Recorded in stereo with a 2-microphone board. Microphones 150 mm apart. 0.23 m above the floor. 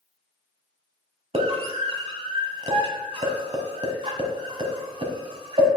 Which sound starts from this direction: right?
A scream, at 1.3 s.